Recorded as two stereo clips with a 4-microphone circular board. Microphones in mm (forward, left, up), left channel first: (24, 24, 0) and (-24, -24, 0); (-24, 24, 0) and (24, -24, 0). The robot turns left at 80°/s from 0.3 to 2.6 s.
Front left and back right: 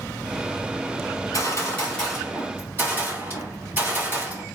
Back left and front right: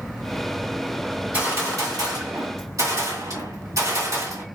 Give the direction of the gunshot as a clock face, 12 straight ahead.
11 o'clock.